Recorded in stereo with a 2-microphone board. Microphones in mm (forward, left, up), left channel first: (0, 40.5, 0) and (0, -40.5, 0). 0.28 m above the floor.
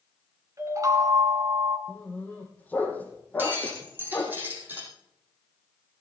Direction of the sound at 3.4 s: 25° right (ahead or behind).